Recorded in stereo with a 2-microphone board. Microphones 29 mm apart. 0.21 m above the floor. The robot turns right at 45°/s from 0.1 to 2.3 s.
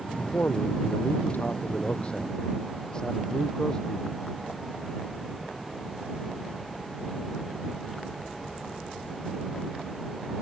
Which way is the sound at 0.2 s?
60° left.